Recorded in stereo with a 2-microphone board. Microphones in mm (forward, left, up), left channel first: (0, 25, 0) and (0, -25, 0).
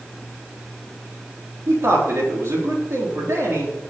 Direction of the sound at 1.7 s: 60° right (ahead or behind).